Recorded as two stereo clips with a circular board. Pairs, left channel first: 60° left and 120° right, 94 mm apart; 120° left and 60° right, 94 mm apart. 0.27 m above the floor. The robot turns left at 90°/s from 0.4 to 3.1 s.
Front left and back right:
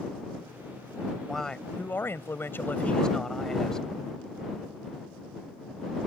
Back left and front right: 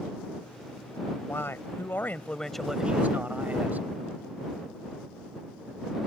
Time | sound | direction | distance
1.2 | a man speaking | 150° left | ?